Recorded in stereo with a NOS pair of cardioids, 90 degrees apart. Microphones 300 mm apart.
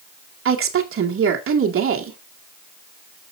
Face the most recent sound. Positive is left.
turn(degrees=-45)